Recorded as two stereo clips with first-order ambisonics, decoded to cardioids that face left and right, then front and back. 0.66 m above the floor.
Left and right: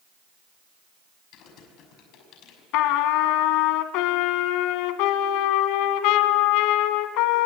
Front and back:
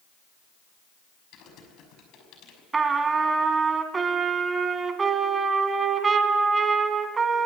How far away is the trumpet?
About 1.7 m.